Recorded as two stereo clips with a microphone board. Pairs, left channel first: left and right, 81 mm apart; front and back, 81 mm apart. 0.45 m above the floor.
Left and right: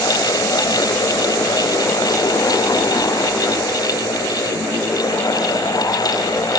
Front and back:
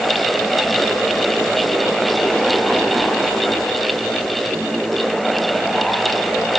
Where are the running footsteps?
No running footsteps in this recording.